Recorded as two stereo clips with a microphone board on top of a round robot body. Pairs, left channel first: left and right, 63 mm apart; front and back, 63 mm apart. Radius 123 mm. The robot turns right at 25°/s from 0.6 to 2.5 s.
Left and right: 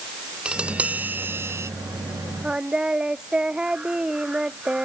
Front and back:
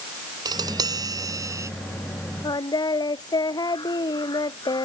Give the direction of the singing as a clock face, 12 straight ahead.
12 o'clock.